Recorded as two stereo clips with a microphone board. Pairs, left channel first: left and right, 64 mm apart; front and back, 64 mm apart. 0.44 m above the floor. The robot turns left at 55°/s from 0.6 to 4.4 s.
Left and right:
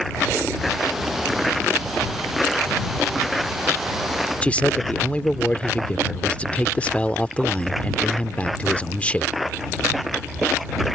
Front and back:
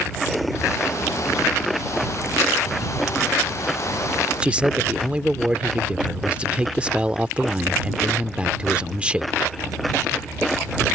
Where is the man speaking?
130° left.